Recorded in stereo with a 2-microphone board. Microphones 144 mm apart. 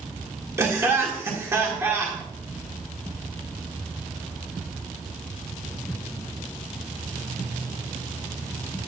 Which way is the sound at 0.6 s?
20° right (ahead or behind).